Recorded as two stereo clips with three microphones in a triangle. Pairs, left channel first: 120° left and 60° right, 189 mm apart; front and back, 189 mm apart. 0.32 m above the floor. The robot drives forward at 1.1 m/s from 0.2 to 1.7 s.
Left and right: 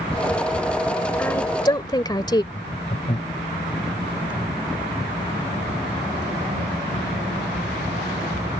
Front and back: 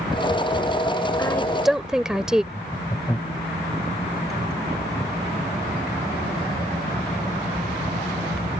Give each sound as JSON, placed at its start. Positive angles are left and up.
{"t": 1.2, "sound": "a woman speaking", "azimuth_deg": 50}
{"t": 2.5, "sound": "laughter", "azimuth_deg": 70}